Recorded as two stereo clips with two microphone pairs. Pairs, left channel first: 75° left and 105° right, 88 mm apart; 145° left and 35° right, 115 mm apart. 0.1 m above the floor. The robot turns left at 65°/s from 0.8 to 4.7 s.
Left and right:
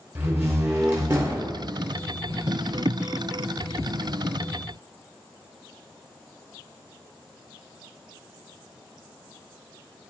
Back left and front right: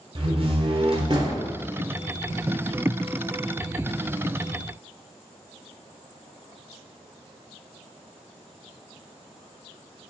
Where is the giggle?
No giggle in this recording.